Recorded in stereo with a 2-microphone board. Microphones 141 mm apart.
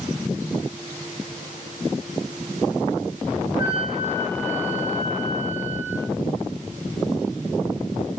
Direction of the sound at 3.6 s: 40° right (ahead or behind).